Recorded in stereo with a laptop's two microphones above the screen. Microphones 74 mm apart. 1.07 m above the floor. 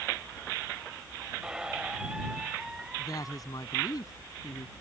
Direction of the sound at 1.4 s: 10° right (ahead or behind).